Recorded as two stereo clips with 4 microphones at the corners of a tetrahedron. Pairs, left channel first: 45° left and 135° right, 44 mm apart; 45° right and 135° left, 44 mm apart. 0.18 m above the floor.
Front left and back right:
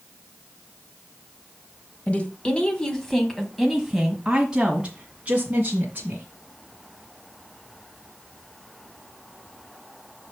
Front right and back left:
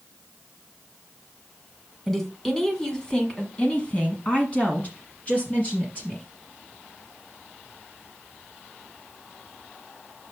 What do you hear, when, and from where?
2.1 s a woman speaking: 40° left, 1.4 m; by 6.3 s 90° right, 2 m